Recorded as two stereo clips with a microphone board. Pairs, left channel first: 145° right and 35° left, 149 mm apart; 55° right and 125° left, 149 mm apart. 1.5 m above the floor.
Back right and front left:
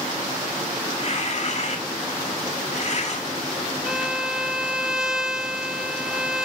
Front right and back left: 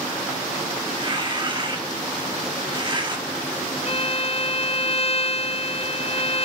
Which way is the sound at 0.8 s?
175° left.